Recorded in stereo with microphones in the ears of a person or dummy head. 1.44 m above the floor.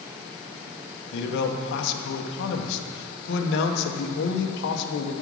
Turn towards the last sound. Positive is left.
turn(degrees=65)  # may be behind; listen again after turning